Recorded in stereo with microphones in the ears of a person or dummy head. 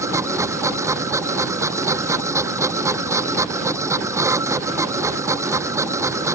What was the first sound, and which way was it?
A machine running, 15° right (ahead or behind).